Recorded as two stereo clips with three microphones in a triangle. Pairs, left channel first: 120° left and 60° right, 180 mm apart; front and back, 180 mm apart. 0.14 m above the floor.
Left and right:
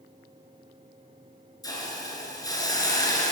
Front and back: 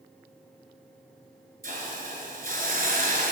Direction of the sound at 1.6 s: 175° right.